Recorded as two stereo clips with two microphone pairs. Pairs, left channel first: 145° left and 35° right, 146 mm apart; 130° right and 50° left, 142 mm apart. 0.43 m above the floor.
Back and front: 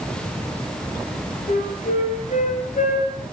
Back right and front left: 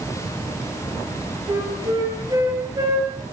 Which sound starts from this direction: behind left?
A flute, at 1.5 s.